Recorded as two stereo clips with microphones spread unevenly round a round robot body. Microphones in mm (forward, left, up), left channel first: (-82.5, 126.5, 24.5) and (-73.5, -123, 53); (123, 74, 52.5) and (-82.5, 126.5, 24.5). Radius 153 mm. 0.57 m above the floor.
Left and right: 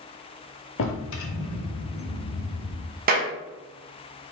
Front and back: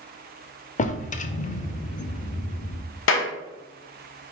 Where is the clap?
30° right, 0.8 m.